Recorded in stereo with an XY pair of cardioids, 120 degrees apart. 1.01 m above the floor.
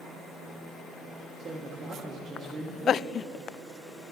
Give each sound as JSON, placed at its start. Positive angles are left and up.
{"t": 1.4, "sound": "a man speaking", "azimuth_deg": -40, "distance_m": 1.1}